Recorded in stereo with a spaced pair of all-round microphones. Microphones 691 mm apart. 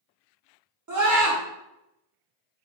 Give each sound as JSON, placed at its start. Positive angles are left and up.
{"t": 0.9, "sound": "a scream", "side_deg": -30, "distance_m": 0.9}